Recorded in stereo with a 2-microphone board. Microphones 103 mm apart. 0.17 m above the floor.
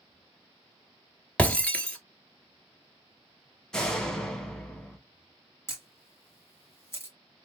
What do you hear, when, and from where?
1.4 s breaking glass: 10° left (ahead or behind), 0.8 m
3.7 s a door slam: 5° left (ahead or behind), 0.8 m
5.7 s a camera shutter: 25° left (ahead or behind), 1.5 m